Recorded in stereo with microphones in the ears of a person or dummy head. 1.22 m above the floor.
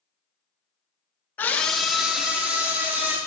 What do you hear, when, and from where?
1.4 s a scream: 5° left (ahead or behind), 0.8 m; by 3.2 s 15° right (ahead or behind), 2.5 m